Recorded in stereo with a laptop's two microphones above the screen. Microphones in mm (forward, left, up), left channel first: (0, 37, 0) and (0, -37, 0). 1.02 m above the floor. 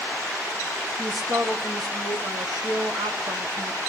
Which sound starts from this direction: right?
A man speaking, at 1.0 s.